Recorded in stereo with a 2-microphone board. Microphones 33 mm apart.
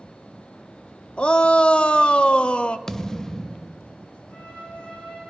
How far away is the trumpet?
About 7.5 m.